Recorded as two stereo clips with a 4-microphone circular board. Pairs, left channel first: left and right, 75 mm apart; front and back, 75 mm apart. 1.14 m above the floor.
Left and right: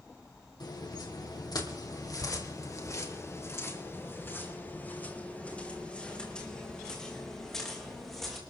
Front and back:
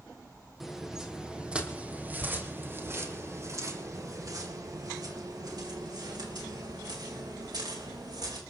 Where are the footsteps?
95° left, 3 m; by 8.4 s straight behind, 5.5 m.